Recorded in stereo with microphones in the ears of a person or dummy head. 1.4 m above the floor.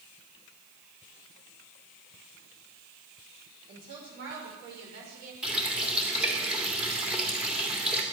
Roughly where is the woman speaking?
Right.